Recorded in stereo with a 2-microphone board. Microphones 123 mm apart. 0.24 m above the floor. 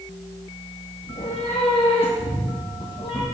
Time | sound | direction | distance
1.0 | a cat meowing | 70° left (ahead or behind) | 1.1 m